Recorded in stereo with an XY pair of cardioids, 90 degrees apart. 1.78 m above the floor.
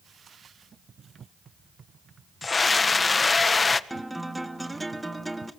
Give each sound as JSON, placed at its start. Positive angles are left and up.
{"t": 2.4, "sound": "a scream", "azimuth_deg": 30, "distance_m": 1.8}
{"t": 3.9, "sound": "a guitar", "azimuth_deg": -10, "distance_m": 2.0}